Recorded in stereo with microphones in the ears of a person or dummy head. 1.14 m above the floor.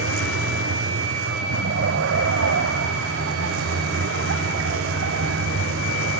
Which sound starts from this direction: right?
A vehicle, at 0.0 s.